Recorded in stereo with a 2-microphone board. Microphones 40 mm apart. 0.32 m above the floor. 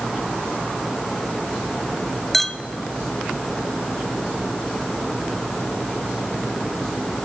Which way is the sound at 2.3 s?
10° left (ahead or behind).